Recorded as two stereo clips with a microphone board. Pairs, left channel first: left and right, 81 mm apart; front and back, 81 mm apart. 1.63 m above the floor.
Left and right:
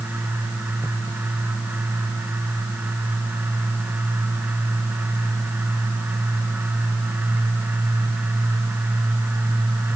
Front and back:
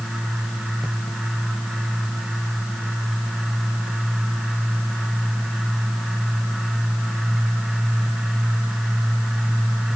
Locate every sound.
Only background noise.